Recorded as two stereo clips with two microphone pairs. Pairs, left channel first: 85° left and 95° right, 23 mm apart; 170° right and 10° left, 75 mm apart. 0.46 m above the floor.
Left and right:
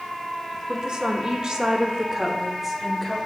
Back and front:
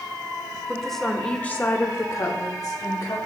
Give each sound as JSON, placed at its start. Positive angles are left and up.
{"t": 0.7, "sound": "a woman speaking", "azimuth_deg": -75, "distance_m": 1.1}